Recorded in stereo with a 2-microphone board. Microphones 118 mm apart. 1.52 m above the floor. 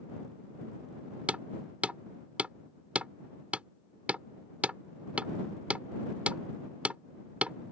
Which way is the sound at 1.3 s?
10° right (ahead or behind).